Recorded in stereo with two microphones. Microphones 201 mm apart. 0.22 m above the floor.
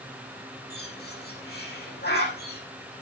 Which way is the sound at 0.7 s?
60° left (ahead or behind).